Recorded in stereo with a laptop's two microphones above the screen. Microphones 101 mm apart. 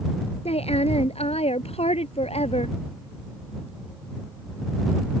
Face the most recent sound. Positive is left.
turn(degrees=85)